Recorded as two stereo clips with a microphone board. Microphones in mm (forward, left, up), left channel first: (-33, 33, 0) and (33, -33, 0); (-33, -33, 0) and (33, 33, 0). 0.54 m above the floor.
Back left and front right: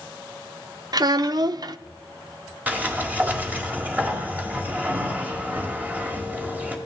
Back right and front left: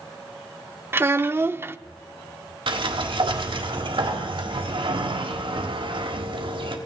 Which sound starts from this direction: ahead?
A child speaking, at 0.9 s.